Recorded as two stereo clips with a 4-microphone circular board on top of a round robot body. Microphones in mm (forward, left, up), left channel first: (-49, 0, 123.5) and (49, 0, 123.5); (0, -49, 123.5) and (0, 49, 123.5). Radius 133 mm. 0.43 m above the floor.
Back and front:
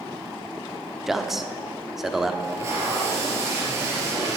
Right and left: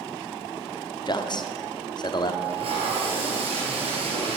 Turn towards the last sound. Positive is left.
turn(degrees=65)